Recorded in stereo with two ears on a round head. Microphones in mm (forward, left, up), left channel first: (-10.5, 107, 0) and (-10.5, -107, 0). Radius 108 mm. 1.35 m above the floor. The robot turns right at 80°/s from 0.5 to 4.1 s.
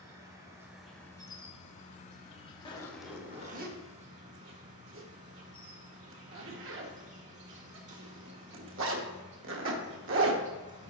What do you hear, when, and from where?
0.0 s an insect: 30° right, 1.3 m; by 10.9 s 100° right, 1.3 m
2.6 s a zipper: 25° left (ahead or behind), 1.0 m; by 10.4 s 55° right (ahead or behind), 1.0 m